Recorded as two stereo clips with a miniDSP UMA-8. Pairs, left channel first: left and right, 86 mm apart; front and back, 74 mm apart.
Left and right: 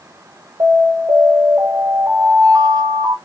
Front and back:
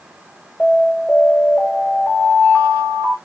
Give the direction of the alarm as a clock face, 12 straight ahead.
2 o'clock.